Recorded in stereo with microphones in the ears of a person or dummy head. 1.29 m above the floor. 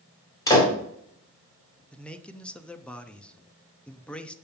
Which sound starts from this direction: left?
A door slam, at 0.5 s.